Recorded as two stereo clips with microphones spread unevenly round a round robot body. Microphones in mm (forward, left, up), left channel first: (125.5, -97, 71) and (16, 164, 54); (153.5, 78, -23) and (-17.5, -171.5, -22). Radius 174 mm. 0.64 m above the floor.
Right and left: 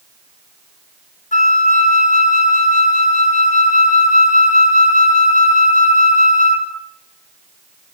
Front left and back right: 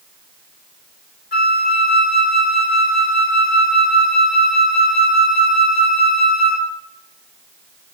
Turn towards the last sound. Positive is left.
turn(degrees=-5)